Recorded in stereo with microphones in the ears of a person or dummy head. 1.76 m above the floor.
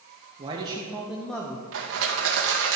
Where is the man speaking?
30° right (ahead or behind), 1.6 m; by 1.6 s 20° left (ahead or behind), 1.1 m.